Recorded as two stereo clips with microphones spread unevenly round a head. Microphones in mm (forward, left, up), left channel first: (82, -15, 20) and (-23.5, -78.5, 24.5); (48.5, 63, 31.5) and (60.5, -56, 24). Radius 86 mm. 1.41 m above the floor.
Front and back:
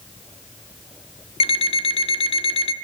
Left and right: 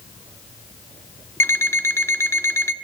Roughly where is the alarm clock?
Ahead left.